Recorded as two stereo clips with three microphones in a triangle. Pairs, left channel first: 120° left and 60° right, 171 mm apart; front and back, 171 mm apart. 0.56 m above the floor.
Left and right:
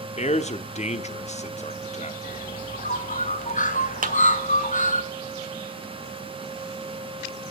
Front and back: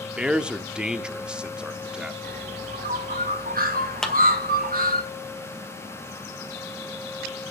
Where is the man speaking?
95° left, 0.9 m.